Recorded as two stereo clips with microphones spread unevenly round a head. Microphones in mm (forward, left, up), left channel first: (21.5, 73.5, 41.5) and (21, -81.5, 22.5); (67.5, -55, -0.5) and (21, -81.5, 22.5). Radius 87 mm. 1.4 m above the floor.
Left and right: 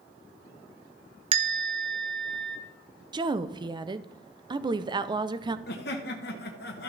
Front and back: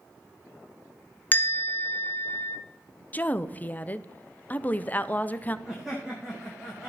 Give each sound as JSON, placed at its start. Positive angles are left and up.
{"t": 1.3, "sound": "a bell", "azimuth_deg": -35, "distance_m": 1.1}
{"t": 3.1, "sound": "a woman speaking", "azimuth_deg": -30, "distance_m": 0.7}
{"t": 5.7, "sound": "laughter", "azimuth_deg": 120, "distance_m": 1.4}